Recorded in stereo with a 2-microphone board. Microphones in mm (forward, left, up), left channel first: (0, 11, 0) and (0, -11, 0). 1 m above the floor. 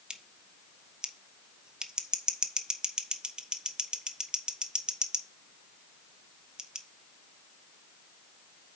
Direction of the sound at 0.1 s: 45° right (ahead or behind).